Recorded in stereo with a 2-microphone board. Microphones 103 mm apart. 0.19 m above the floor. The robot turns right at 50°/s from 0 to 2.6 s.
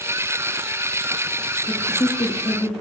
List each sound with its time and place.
1.7 s a man speaking: 20° left, 6 m; by 2.7 s 70° left, 6 m